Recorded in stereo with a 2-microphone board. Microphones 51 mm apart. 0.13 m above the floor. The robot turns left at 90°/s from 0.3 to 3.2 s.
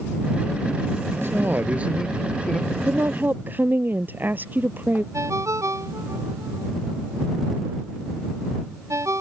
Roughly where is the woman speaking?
Right.